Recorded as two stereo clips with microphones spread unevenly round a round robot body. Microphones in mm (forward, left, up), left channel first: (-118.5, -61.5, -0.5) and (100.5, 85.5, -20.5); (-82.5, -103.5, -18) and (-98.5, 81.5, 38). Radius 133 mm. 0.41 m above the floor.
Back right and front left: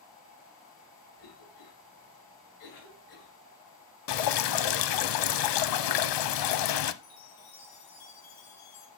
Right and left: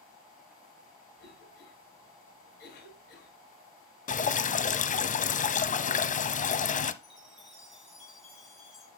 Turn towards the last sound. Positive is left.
turn(degrees=-175)